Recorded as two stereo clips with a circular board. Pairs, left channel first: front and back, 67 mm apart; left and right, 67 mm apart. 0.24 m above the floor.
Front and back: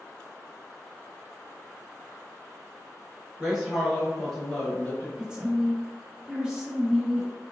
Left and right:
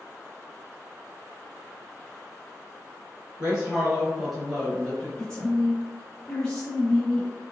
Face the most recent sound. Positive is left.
turn(degrees=145)